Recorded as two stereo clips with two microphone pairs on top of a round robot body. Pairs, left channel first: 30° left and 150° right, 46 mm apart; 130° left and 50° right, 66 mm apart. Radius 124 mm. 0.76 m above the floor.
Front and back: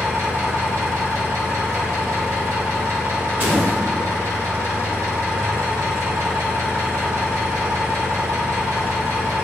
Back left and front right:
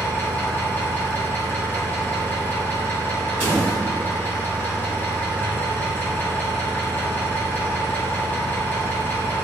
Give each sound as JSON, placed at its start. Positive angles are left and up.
{"t": 0.0, "sound": "an engine running", "azimuth_deg": -160, "distance_m": 1.3}
{"t": 3.4, "sound": "a door slam", "azimuth_deg": -110, "distance_m": 1.5}